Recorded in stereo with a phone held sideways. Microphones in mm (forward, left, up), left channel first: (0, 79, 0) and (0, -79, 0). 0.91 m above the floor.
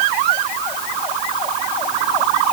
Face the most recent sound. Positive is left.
No sound to turn to.